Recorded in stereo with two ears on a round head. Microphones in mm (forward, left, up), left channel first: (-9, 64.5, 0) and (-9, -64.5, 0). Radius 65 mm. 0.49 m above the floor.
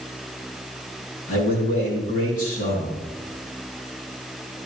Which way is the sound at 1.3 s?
65° left (ahead or behind).